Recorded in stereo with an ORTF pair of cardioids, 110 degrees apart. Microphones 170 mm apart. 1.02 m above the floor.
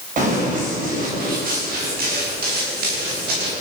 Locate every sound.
0.2 s running footsteps: 50° right, 9 m; by 3.5 s 65° right, 12.5 m